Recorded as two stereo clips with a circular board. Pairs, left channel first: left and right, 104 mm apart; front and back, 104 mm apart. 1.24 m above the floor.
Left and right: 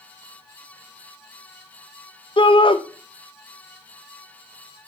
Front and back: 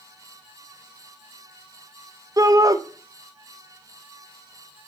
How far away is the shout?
About 0.9 m.